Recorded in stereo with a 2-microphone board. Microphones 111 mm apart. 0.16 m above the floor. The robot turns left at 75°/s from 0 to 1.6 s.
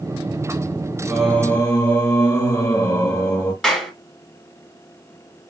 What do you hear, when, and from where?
1.1 s singing: 175° right, 2.5 m; by 3.5 s 145° left, 2.5 m
3.6 s a clap: 5° left (ahead or behind), 1.6 m